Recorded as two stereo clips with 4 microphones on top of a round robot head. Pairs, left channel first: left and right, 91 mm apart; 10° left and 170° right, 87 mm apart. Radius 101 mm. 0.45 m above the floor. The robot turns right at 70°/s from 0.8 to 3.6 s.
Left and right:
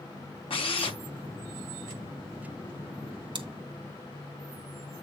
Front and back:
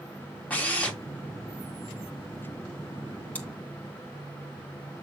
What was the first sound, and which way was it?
A drill, 85° left.